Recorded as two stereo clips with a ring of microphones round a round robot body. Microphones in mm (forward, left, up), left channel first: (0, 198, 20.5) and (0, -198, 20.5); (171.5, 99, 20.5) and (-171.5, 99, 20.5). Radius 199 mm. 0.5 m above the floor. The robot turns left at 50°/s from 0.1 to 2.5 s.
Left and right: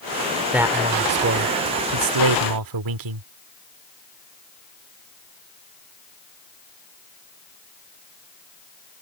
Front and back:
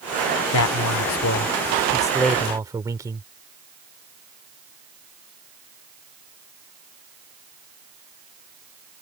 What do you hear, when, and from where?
0.5 s a man speaking: 5° right; by 3.2 s 100° right